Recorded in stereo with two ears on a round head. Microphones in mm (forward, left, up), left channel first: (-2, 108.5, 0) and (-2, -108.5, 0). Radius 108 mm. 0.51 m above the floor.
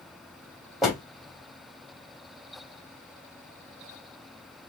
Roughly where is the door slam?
Centre.